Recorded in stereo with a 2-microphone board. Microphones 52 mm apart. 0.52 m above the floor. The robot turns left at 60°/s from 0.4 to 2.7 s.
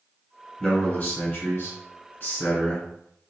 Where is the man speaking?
160° left, 1.9 m; by 2.9 s 35° left, 1.9 m.